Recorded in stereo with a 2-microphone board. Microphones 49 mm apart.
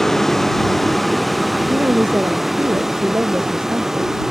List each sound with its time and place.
0.0 s a vehicle: 5° left (ahead or behind); by 4.3 s 10° right (ahead or behind)
1.7 s a woman speaking: 45° right (ahead or behind)